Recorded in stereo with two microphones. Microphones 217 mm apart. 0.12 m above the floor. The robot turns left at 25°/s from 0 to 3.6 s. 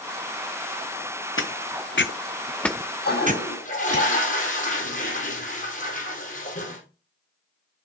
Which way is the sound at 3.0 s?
50° left (ahead or behind).